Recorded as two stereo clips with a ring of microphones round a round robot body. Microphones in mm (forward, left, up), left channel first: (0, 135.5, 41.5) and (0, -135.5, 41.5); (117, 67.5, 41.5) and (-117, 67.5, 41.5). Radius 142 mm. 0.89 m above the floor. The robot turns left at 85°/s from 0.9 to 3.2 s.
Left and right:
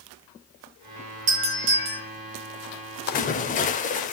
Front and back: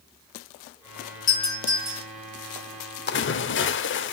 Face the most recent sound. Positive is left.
turn(degrees=30)